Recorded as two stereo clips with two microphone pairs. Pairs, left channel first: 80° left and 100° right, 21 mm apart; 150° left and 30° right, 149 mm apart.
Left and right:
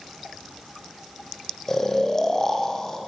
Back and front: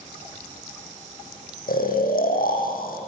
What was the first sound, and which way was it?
Snoring, 145° left.